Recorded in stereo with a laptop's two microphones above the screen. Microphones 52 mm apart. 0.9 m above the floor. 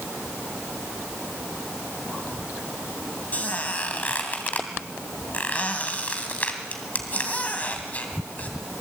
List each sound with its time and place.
3.3 s a squeak: 30° left (ahead or behind), 2.5 m